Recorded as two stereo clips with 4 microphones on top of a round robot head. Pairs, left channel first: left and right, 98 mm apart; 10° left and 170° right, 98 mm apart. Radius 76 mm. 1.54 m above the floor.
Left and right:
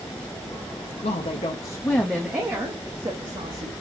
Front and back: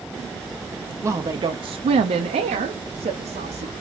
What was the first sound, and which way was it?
A woman speaking, 125° left.